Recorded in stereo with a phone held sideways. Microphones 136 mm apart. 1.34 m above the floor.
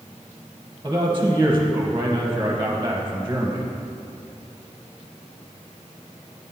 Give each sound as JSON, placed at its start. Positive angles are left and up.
{"t": 0.8, "sound": "a man speaking", "side_deg": -20, "distance_m": 0.9}